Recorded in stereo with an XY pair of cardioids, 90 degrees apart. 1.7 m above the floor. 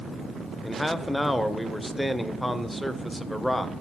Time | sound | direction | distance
0.6 | a man speaking | 5° left | 0.8 m